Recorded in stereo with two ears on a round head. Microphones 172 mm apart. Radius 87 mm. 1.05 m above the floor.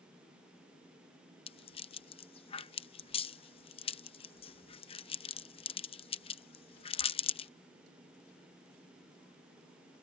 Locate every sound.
1.5 s a rattle: 30° left (ahead or behind)